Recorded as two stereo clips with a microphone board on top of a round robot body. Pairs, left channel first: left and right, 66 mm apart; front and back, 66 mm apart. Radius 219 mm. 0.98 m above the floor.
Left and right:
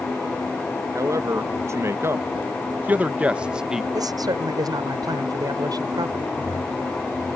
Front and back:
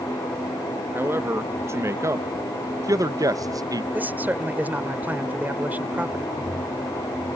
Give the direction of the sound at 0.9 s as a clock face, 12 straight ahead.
4 o'clock.